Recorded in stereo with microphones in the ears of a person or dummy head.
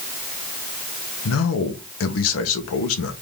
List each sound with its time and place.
1.2 s a man speaking: 75° left (ahead or behind), 1.2 m